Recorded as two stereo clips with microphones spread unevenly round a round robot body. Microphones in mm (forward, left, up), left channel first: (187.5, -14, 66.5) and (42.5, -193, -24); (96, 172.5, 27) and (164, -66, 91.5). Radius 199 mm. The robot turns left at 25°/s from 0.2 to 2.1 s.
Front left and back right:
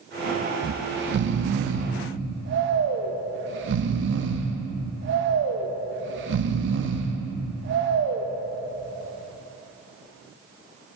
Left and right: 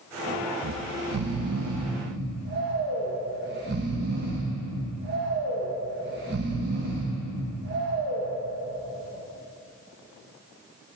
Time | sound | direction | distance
0.6 | snoring | 95° right | 0.5 m